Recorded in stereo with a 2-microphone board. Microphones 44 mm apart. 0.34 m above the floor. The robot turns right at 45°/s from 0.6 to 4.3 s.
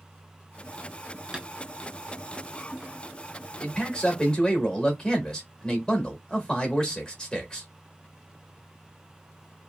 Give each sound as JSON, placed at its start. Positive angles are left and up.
{"t": 1.3, "sound": "tapping", "side_deg": -15, "distance_m": 0.7}
{"t": 3.6, "sound": "a man speaking", "side_deg": 20, "distance_m": 0.9}